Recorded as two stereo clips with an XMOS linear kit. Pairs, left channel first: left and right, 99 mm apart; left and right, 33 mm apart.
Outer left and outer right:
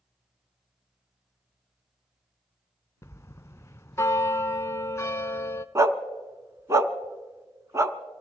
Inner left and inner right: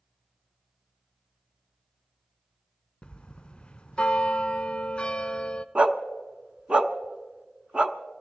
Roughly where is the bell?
Left.